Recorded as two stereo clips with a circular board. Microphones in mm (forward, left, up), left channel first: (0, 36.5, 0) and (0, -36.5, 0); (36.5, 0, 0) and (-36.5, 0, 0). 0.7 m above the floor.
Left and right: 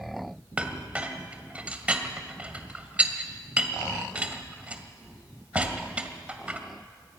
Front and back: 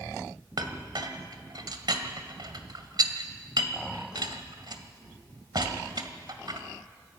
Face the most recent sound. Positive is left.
turn(degrees=-160)